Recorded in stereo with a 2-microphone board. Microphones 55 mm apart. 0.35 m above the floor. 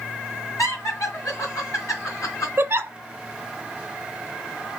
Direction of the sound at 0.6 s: 65° left (ahead or behind).